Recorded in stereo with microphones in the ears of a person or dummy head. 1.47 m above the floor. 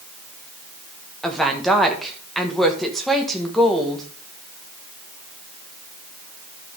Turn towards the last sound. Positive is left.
turn(degrees=0)  # may be behind; listen again after turning